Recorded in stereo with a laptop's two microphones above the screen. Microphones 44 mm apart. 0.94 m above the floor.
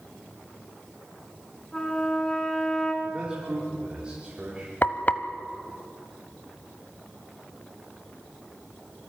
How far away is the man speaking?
About 3 m.